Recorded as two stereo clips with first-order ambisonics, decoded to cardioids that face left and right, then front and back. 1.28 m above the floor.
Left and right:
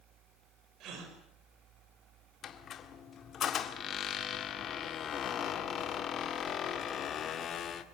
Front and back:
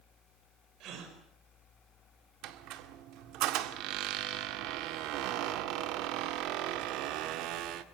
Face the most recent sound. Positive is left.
turn(degrees=150)